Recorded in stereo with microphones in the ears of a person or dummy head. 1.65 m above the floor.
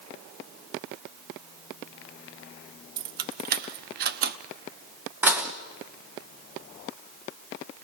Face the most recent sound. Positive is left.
turn(degrees=-15)  # may be behind; listen again after turning